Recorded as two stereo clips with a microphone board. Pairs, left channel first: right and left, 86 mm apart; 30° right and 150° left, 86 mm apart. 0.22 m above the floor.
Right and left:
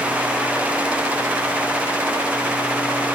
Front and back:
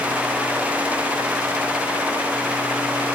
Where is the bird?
No bird in this recording.